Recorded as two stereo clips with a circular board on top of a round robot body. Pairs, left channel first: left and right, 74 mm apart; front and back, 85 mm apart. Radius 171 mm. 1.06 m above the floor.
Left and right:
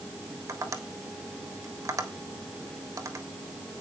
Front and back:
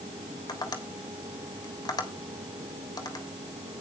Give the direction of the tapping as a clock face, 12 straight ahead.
1 o'clock.